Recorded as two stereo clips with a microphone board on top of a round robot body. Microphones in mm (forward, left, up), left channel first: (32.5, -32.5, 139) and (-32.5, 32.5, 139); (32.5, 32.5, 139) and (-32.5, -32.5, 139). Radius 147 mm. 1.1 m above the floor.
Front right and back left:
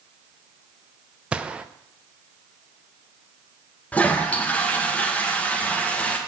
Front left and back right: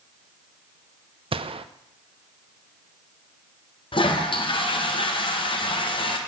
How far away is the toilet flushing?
About 1.8 m.